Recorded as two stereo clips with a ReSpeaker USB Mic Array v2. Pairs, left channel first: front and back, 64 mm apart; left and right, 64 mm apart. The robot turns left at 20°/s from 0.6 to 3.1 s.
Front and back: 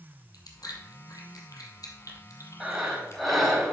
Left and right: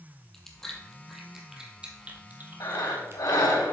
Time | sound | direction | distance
0.3 | chewing | 5° left | 1.6 m
2.6 | breathing | 100° left | 3 m